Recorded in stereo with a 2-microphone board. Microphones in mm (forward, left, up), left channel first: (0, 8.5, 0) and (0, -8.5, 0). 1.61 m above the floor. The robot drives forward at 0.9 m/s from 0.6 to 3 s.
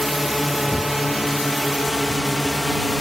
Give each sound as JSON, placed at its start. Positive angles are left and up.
{"t": 0.0, "sound": "a drone", "side_deg": 0}